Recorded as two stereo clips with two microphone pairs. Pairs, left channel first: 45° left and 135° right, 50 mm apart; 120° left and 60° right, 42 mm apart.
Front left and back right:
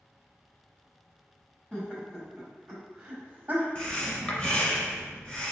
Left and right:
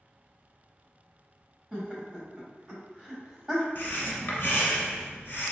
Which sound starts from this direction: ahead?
Laughter, at 1.7 s.